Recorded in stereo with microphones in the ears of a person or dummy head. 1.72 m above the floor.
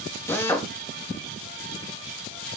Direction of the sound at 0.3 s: 15° left (ahead or behind).